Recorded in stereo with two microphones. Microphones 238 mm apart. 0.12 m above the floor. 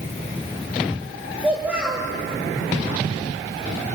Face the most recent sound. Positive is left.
turn(degrees=-5)  # may be behind; listen again after turning